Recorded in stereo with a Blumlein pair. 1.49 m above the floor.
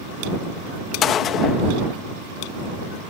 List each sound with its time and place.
1.0 s a gunshot: 30° left